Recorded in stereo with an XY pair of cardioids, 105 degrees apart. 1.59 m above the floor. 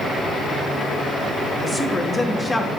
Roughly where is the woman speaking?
Ahead.